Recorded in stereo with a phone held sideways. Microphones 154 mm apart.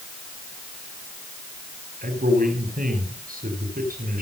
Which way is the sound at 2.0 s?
65° right (ahead or behind).